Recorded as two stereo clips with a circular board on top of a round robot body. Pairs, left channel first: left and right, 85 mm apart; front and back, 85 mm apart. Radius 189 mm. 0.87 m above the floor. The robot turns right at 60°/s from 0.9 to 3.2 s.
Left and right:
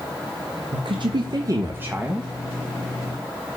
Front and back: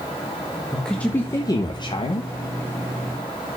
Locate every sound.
0.7 s a woman speaking: 80° right, 1.3 m; by 2.3 s 5° left, 1.3 m